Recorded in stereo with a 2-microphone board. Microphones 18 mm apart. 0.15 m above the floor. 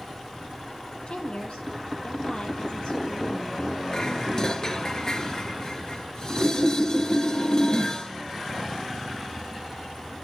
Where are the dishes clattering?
40° left (ahead or behind), 1.7 m.